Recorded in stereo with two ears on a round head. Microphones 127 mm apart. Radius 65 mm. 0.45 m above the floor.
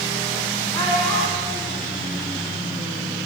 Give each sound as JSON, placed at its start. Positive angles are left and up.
{"t": 0.7, "sound": "a child speaking", "side_deg": 25, "distance_m": 2.5}